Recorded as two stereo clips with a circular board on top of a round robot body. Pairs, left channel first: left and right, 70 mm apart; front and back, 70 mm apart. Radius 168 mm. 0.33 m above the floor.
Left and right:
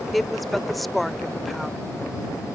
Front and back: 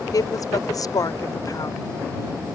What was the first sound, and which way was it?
A woman speaking, straight ahead.